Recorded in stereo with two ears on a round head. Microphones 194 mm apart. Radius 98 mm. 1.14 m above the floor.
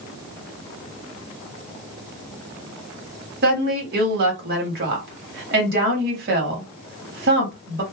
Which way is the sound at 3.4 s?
45° right (ahead or behind).